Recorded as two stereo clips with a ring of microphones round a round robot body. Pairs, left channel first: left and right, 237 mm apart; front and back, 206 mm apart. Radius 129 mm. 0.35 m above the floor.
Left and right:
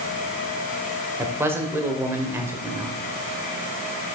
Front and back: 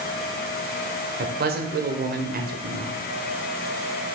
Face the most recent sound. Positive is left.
turn(degrees=-165)